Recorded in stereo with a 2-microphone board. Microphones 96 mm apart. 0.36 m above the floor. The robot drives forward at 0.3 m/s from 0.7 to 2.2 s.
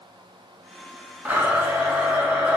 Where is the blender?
20° right (ahead or behind), 0.6 m; by 2.6 s 15° right (ahead or behind), 0.8 m.